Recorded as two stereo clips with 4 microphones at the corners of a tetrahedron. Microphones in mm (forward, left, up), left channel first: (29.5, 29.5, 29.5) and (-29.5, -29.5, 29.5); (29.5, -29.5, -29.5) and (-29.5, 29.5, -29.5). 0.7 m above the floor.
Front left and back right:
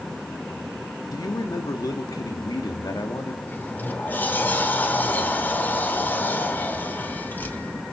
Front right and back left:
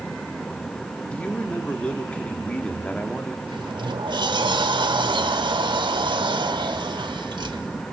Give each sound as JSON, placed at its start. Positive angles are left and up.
{"t": 1.1, "sound": "a man speaking", "azimuth_deg": 25, "distance_m": 1.7}
{"t": 3.5, "sound": "a sliding door", "azimuth_deg": 115, "distance_m": 1.2}